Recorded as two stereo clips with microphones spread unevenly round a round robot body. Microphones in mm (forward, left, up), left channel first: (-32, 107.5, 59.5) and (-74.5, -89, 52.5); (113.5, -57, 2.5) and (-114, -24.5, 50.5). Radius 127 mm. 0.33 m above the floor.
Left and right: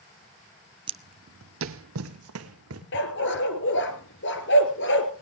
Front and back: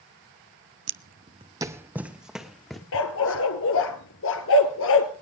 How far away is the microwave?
No microwave in this recording.